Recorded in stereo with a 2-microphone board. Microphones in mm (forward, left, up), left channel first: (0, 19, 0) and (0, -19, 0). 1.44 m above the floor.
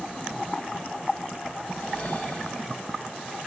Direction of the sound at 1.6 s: 30° left (ahead or behind).